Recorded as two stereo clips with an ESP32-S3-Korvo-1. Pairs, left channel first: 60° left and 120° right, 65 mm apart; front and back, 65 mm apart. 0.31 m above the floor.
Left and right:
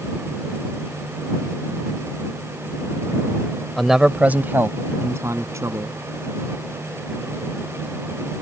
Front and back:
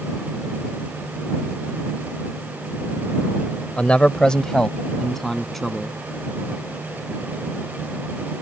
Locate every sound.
3.8 s a man speaking: 20° right; by 6.0 s 85° right